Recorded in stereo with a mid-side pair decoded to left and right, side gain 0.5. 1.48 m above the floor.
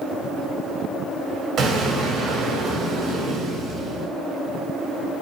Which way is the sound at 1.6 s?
60° right.